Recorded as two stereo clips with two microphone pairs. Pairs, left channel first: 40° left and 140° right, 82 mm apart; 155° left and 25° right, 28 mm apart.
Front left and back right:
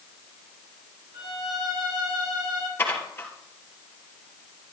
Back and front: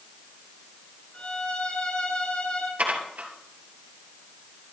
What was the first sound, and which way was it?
A violin, 165° right.